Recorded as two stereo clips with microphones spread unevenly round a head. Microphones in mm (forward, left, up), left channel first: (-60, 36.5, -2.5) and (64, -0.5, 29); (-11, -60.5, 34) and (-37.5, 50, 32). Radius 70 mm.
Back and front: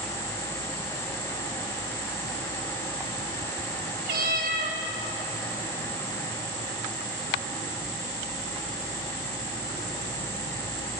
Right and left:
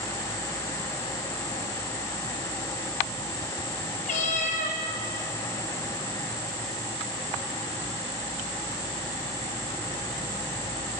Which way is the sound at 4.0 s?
50° right.